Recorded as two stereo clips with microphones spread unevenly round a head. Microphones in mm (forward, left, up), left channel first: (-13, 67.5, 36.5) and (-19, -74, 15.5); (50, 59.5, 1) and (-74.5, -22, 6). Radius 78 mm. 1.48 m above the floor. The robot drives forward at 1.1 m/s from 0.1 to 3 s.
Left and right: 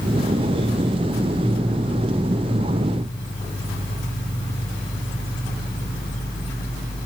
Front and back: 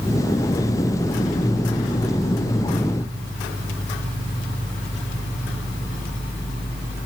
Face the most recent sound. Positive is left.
No sound to turn to.